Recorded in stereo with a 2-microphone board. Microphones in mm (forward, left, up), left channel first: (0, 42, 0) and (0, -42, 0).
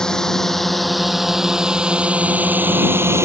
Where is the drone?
5° left (ahead or behind); by 3.2 s 35° right (ahead or behind).